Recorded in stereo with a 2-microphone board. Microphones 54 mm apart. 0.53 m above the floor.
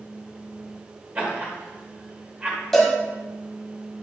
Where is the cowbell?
5° left (ahead or behind), 2 m.